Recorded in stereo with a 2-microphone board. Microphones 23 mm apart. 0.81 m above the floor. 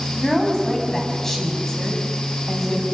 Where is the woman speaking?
20° left (ahead or behind), 5 m.